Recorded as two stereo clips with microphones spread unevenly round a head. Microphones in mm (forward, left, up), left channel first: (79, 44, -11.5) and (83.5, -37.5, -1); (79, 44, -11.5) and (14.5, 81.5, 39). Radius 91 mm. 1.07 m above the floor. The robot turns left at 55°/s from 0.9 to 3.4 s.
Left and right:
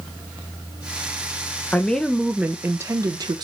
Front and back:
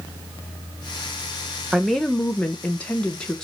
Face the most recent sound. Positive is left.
turn(degrees=-65)